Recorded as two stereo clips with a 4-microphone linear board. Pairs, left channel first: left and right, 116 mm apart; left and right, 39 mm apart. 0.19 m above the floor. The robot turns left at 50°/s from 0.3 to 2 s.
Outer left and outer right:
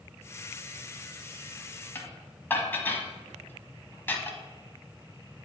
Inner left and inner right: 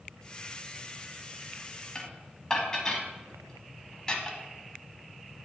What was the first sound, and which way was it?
Dishes clattering, 20° left (ahead or behind).